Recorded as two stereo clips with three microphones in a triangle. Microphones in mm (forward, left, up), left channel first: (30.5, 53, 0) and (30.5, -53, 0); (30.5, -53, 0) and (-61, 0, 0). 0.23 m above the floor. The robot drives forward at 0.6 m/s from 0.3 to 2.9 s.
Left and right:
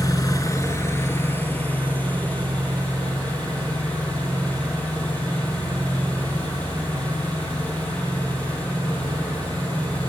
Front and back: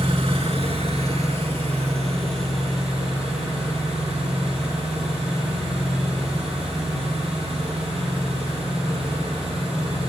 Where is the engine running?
140° left, 0.8 m; by 10.1 s 165° left, 2 m.